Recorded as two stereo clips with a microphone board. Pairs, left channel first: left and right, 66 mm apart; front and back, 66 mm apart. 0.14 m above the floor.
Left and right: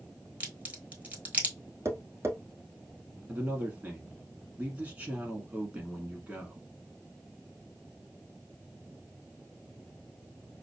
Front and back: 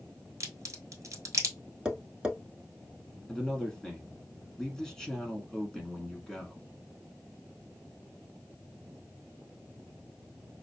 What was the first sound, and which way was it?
A crack, 150° right.